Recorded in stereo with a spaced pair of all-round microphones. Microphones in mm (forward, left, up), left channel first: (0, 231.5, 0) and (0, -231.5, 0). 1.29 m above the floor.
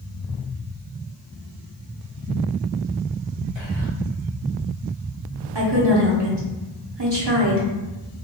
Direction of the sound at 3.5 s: 70° right (ahead or behind).